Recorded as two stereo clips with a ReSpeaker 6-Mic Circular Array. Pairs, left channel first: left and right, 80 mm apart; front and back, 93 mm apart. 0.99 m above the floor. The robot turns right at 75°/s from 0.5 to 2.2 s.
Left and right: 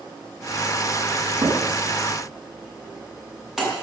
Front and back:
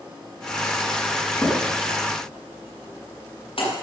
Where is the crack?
70° right, 6.5 m; by 3.7 s 10° right, 6.5 m.